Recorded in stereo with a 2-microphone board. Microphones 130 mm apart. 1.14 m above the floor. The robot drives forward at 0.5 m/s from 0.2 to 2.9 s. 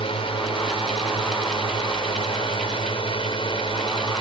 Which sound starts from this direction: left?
A drone, at 0.0 s.